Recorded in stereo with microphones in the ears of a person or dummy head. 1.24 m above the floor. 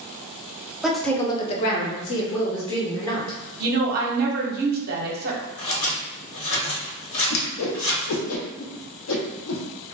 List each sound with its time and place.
0.8 s a woman speaking: 5° right (ahead or behind), 0.6 m; by 3.4 s 65° left (ahead or behind), 1.1 m
3.6 s a woman speaking: 45° right (ahead or behind), 0.7 m
5.6 s scissors: 75° left (ahead or behind), 1.1 m
7.3 s a whoosh: 75° left (ahead or behind), 0.5 m